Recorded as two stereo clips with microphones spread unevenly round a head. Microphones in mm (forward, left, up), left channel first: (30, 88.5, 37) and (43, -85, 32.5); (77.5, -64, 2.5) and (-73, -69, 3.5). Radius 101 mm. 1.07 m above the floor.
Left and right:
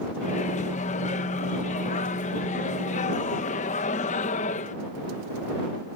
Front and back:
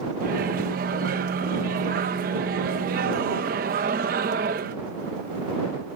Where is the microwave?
145° left.